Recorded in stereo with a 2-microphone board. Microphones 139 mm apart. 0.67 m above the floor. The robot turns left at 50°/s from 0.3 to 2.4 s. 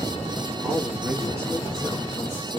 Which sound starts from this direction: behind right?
A man speaking, at 0.6 s.